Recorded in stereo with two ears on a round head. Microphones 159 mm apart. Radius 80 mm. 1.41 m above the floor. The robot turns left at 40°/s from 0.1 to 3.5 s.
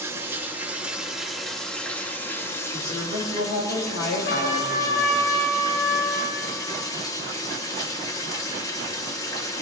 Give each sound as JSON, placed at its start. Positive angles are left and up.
{"t": 0.0, "sound": "running water", "side_deg": -15, "distance_m": 0.8}
{"t": 2.7, "sound": "a woman speaking", "azimuth_deg": 125, "distance_m": 3.0}
{"t": 4.3, "sound": "a trumpet", "side_deg": 75, "distance_m": 3.5}